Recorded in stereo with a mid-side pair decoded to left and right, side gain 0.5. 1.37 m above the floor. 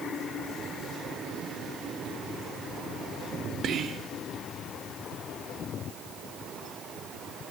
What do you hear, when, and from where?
3.6 s whispering: 60° right, 1.0 m